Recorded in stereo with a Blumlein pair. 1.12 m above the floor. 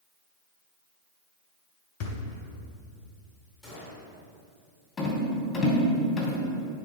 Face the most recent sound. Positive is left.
turn(degrees=15)